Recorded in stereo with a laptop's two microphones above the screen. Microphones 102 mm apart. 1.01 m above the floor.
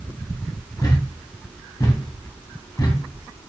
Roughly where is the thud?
Left.